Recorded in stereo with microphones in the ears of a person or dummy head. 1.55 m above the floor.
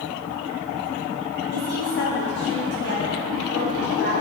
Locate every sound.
1.5 s a woman speaking: 55° left (ahead or behind), 2.5 m